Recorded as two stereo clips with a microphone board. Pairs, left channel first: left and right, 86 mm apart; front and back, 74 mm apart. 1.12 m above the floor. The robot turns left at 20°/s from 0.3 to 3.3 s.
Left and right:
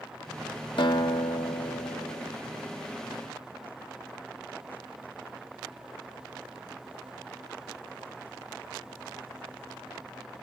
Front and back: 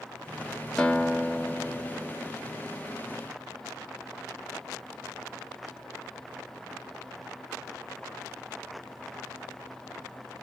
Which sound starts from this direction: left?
A guitar, at 0.8 s.